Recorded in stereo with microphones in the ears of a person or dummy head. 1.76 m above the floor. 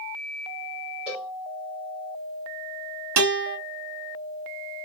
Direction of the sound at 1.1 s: 5° right (ahead or behind).